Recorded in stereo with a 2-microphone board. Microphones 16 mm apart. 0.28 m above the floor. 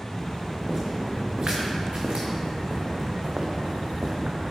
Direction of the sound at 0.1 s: 40° right (ahead or behind).